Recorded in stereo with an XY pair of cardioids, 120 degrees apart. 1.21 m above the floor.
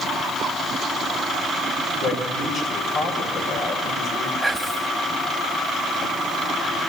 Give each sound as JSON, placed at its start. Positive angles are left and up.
{"t": 2.0, "sound": "a man speaking", "azimuth_deg": 60, "distance_m": 5.5}
{"t": 4.4, "sound": "whispering", "azimuth_deg": -10, "distance_m": 1.8}